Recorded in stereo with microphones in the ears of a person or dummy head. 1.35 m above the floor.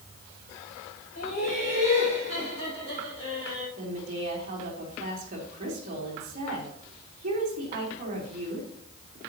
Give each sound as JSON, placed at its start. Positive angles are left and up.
{"t": 1.1, "sound": "laughter", "side_deg": 45, "distance_m": 6.0}
{"t": 3.8, "sound": "a woman speaking", "side_deg": -40, "distance_m": 3.5}